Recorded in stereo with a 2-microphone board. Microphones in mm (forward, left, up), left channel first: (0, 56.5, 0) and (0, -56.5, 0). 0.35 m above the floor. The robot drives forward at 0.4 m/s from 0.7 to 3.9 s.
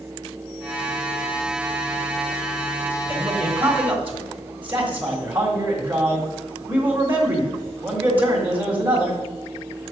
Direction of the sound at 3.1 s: 20° right (ahead or behind).